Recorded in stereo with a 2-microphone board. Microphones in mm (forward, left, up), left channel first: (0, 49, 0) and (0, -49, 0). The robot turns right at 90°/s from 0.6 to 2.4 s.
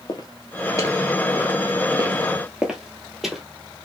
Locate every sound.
0.1 s footsteps: 45° left (ahead or behind), 1.0 m; by 3.4 s centre (ahead or behind), 1.3 m